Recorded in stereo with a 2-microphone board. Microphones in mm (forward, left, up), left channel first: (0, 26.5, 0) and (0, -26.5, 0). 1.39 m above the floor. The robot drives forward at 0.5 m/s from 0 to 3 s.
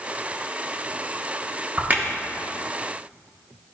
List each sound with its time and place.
1.8 s a crack: 30° right (ahead or behind), 1.0 m; by 2.0 s 35° right (ahead or behind), 0.9 m